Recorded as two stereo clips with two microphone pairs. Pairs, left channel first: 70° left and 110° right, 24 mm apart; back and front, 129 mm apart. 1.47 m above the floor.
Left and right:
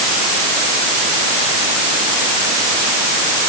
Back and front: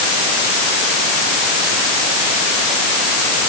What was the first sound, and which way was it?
Only background noise.